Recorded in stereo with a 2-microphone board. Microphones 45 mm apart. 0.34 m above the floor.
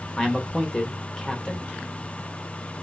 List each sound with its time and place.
0.2 s a man speaking: 15° left (ahead or behind), 0.8 m